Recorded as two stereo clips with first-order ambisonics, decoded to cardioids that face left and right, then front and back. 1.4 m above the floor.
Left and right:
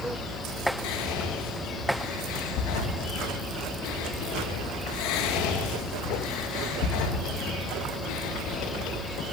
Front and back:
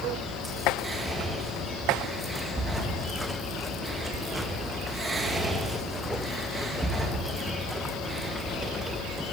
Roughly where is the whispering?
Left.